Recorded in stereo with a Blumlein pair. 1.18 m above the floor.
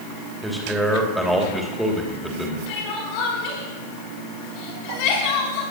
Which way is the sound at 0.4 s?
Straight ahead.